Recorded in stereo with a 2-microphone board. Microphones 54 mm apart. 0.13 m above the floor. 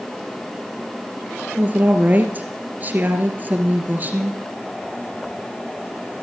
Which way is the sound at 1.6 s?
35° right (ahead or behind).